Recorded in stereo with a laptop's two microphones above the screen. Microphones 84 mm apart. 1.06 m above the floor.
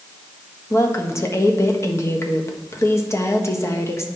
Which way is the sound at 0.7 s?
35° left (ahead or behind).